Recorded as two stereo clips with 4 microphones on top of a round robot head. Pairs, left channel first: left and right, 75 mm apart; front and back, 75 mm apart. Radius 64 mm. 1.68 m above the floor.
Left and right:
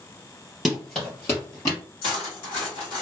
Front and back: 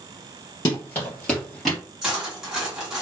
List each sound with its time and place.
0.7 s running footsteps: 5° right, 1.8 m; by 1.8 s 95° left, 2 m
2.0 s cutlery clinking: 100° left, 1.9 m